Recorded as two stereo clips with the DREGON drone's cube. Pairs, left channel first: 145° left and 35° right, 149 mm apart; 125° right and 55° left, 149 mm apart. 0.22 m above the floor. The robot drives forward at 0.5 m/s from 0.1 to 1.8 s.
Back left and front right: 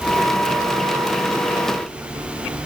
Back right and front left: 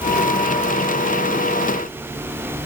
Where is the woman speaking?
No woman speaking in this recording.